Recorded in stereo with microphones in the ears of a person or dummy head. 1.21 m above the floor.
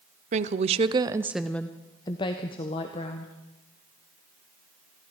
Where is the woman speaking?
40° right (ahead or behind), 0.7 m; by 3.3 s 30° left (ahead or behind), 1.4 m.